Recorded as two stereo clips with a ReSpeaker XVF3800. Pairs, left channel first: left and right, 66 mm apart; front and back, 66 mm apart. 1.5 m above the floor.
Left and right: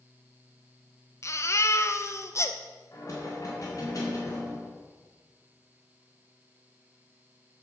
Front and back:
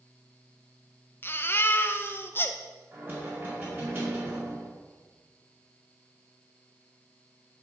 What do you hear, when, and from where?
1.2 s a baby crying: 50° left, 0.7 m
2.9 s knocking: 125° left, 4.5 m